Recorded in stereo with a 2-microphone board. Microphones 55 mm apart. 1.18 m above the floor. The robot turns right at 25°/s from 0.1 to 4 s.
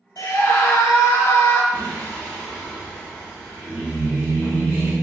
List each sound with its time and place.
0.2 s a scream: 100° left, 0.9 m; by 1.6 s 135° left, 0.9 m
1.7 s singing: 145° left, 1.7 m; by 4.9 s 155° right, 1.7 m